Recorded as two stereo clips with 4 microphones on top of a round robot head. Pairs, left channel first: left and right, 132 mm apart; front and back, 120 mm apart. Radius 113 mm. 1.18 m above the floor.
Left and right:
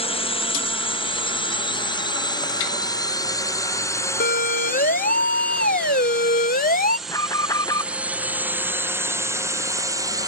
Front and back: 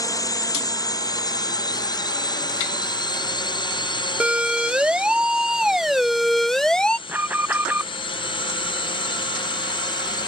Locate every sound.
0.0 s a drone: 55° left; by 10.3 s 35° right
4.2 s a siren: 100° left; by 7.0 s 85° left
7.1 s an alarm: 125° left